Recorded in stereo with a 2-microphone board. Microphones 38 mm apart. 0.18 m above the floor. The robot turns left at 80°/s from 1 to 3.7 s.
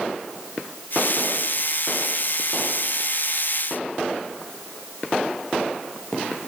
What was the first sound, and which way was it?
Only background noise.